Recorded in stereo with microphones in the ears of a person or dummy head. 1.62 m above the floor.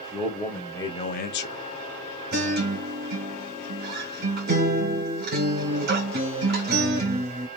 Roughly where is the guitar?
Right.